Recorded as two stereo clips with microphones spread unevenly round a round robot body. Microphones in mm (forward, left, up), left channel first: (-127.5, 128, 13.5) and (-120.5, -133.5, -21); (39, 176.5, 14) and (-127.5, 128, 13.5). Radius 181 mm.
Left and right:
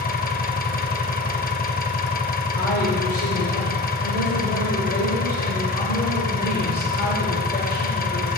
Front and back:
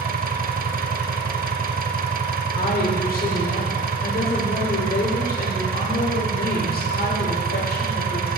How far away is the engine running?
About 0.8 m.